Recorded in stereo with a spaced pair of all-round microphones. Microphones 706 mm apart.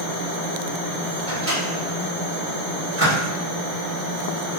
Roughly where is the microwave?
Right.